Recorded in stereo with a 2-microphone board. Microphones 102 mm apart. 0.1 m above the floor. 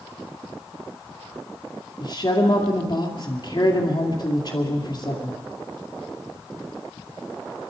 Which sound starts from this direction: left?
A woman speaking, at 2.0 s.